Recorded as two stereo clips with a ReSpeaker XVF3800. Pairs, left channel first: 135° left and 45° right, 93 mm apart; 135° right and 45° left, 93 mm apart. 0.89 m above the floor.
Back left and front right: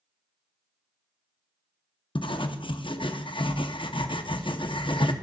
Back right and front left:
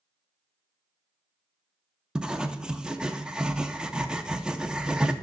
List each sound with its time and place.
2.1 s writing: 125° left, 0.6 m